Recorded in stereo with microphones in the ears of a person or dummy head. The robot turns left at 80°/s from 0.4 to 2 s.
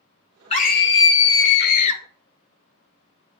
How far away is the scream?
About 1.1 m.